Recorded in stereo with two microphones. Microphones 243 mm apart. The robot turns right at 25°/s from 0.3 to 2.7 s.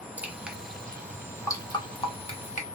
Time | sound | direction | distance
0.2 | dripping | 5° right (ahead or behind) | 0.8 m